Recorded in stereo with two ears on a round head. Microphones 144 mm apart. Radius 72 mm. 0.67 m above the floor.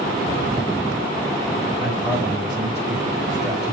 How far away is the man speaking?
About 3 m.